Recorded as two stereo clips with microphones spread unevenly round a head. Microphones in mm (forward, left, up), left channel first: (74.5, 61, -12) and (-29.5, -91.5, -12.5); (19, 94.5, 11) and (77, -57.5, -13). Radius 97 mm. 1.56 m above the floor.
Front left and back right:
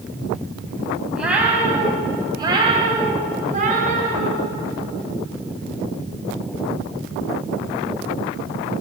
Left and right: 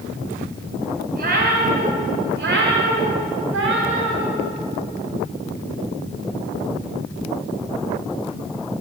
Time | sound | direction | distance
1.1 | a cat meowing | 40° right | 3.5 m